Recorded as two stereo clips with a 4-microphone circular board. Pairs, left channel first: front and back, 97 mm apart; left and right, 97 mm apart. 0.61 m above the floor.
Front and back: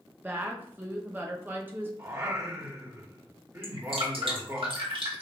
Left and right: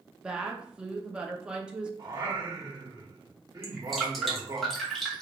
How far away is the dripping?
About 1.6 m.